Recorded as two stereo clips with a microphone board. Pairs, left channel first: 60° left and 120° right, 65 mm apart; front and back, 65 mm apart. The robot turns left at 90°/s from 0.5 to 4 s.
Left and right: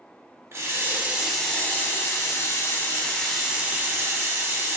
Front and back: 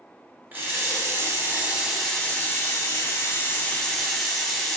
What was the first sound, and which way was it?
A running tap, 135° right.